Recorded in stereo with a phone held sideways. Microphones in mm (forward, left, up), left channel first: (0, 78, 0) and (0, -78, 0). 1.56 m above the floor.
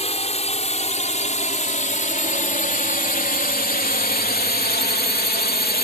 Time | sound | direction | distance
0.0 | a drone | 40° left (ahead or behind) | ?